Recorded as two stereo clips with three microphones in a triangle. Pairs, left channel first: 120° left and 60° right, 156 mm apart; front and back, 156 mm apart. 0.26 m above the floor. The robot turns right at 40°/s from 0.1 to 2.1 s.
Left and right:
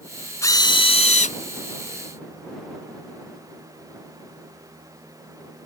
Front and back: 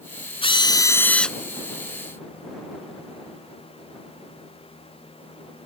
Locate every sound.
0.4 s a drill: 50° left; by 1.4 s 90° left